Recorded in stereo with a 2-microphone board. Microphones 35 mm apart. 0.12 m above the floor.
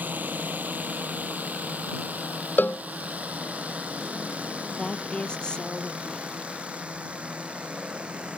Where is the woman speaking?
25° left (ahead or behind).